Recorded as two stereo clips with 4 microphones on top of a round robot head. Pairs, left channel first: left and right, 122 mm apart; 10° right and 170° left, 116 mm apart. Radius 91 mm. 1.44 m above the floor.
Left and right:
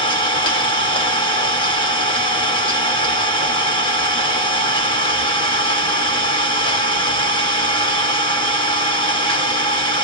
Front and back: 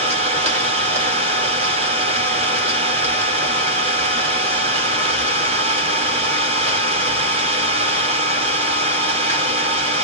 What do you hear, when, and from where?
0.0 s an engine running: 135° left, 3 m